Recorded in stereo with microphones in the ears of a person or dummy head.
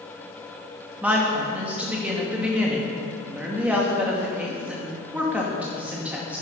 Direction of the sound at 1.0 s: 5° right (ahead or behind).